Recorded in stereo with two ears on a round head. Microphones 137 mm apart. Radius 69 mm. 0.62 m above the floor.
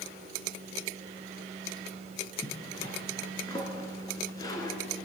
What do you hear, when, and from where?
2.4 s a zipper: 25° left (ahead or behind), 2.5 m